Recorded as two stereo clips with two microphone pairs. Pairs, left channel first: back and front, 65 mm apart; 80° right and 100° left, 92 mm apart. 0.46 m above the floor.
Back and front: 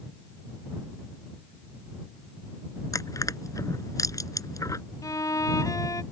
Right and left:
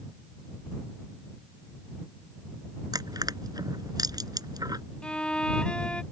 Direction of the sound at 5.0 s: 155° right.